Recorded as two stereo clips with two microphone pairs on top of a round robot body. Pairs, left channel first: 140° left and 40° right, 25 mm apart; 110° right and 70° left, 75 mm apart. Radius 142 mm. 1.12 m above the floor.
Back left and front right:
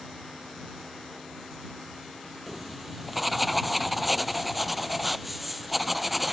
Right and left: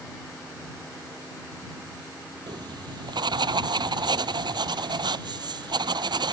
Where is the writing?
50° left.